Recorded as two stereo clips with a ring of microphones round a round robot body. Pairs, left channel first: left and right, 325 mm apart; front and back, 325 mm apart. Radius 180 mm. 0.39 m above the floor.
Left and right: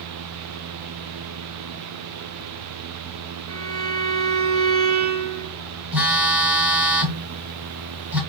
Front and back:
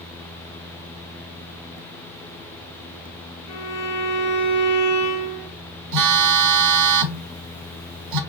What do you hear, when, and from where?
3.5 s a violin: 40° right, 2 m
5.9 s a phone buzzing: 175° right, 0.8 m